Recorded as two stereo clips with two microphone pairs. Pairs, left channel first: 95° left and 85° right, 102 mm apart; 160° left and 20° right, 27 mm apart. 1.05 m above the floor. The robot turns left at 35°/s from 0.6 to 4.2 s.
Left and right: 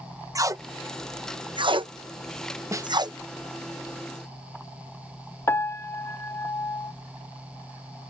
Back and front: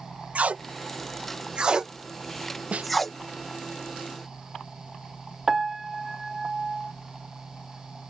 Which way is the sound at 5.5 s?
45° left.